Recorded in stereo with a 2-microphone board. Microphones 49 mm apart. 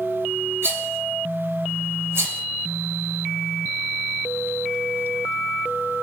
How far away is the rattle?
About 3 m.